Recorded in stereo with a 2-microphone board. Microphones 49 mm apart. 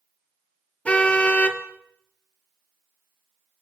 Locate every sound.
0.8 s a car horn: 25° left (ahead or behind), 2.5 m